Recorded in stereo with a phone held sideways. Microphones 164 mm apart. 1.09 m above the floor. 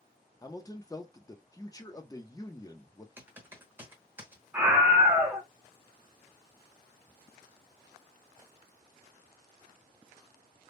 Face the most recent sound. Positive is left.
turn(degrees=-10)  # may be behind; listen again after turning